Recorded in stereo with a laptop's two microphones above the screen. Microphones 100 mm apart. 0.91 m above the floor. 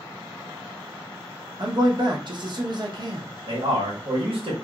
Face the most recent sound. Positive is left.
turn(degrees=-70)  # may be behind; listen again after turning